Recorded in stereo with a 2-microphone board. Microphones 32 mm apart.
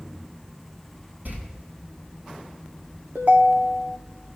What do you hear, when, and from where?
1.2 s a door slam: 65° right (ahead or behind), 6 m
3.1 s a ringtone: 60° right (ahead or behind), 0.9 m